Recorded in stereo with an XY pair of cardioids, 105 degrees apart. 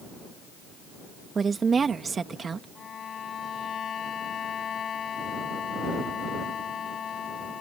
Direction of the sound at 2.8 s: 50° left.